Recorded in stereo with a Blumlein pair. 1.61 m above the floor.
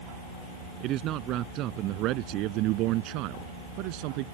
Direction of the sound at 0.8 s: 35° right.